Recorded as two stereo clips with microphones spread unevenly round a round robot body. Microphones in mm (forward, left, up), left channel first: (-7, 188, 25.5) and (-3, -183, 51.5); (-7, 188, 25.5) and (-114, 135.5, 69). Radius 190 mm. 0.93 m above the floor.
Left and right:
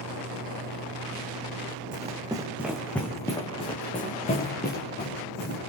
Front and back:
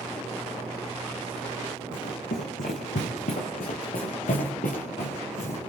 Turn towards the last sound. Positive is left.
turn(degrees=30)